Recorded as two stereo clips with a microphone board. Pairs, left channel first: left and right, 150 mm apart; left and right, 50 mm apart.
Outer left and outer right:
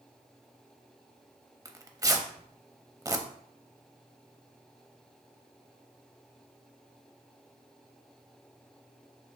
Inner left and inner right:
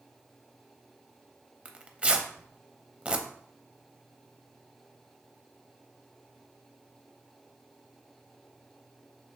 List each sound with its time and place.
1.6 s tearing paper: 25° right (ahead or behind), 0.6 m